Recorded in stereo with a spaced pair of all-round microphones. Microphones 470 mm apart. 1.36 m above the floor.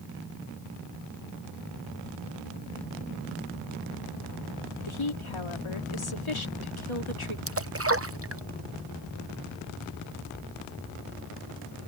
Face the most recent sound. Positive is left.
turn(degrees=-30)  # may be behind; listen again after turning